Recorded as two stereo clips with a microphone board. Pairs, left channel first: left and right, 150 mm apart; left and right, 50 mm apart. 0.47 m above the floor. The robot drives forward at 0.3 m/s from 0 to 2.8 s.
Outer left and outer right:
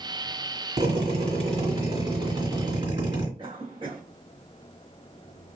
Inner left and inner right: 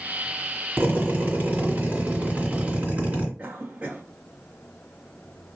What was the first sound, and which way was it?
A drill, 50° right (ahead or behind).